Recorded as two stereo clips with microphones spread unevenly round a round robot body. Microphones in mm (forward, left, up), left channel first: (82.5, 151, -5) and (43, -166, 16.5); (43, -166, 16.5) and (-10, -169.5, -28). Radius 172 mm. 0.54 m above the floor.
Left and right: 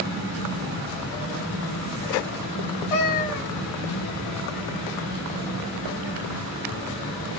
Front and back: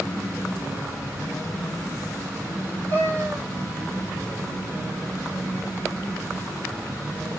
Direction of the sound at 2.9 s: 110° left.